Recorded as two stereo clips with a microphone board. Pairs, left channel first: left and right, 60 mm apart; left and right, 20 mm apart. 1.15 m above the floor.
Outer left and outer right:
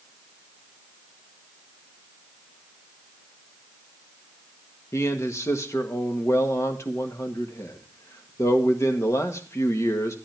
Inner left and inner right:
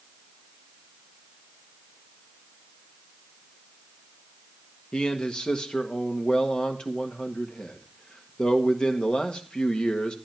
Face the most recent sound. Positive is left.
turn(degrees=55)  # may be behind; listen again after turning